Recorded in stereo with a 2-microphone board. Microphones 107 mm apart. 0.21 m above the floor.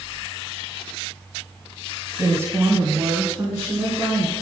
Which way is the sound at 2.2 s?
20° right (ahead or behind).